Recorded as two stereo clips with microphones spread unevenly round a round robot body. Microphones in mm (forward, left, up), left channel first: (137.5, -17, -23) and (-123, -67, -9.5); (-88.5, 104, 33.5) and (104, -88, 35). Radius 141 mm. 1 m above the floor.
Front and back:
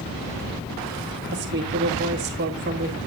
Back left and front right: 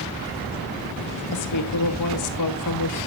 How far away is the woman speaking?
About 2.0 m.